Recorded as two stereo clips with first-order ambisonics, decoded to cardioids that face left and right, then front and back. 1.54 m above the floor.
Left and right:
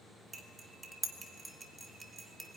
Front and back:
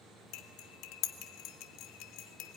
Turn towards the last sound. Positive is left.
turn(degrees=-15)